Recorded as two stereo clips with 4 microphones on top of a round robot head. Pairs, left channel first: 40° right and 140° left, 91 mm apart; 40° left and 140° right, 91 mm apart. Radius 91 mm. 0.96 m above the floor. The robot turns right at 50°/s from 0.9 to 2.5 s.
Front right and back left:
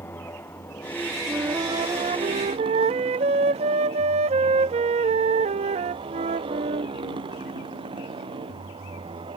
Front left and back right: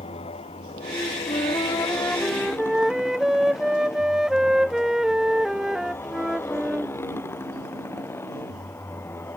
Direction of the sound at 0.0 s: 25° left.